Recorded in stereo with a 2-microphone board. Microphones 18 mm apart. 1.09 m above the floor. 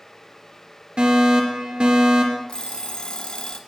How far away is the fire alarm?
About 2.5 m.